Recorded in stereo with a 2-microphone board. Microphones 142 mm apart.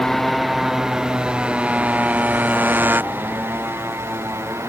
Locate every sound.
0.0 s a motorcycle: centre (ahead or behind); by 4.7 s 20° right (ahead or behind)